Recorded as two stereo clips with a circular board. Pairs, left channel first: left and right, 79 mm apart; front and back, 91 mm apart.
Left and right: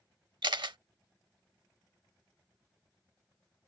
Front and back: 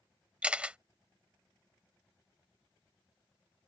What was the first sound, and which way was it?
A camera shutter, 105° right.